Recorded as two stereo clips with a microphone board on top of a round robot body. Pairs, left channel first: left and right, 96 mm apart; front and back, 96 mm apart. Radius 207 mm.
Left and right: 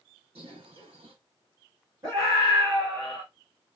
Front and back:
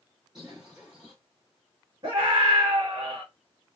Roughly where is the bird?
Right.